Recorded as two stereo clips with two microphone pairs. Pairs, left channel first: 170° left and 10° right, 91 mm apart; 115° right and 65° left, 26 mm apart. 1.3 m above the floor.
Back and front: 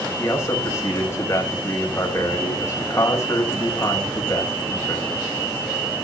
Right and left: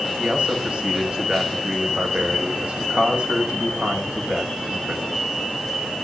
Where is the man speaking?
115° left, 5.5 m.